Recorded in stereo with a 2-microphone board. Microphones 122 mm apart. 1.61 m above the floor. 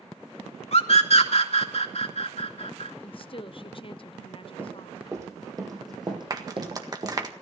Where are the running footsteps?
20° right (ahead or behind), 4.5 m; by 7.2 s 50° right (ahead or behind), 3.5 m.